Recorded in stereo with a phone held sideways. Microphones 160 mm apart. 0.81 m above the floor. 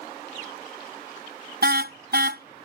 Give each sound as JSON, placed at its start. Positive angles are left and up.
{"t": 1.6, "sound": "a car horn", "side_deg": -75}